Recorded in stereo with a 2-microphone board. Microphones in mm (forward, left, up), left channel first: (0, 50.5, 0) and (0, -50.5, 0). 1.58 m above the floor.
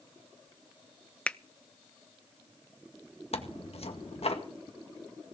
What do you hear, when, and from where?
1.3 s a finger snap: 10° left (ahead or behind), 0.5 m
3.3 s tearing paper: 80° left, 2.0 m